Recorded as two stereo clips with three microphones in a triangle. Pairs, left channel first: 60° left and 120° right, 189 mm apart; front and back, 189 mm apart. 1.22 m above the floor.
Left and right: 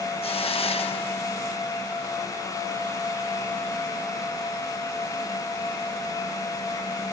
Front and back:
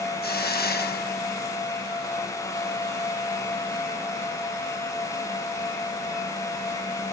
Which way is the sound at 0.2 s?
5° left.